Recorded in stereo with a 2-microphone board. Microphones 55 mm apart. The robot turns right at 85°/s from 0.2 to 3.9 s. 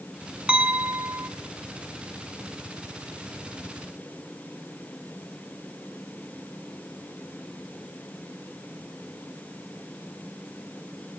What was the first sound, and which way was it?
A clink, 150° right.